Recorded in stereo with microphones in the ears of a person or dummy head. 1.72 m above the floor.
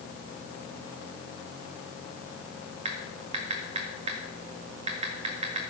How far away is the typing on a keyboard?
About 1.8 m.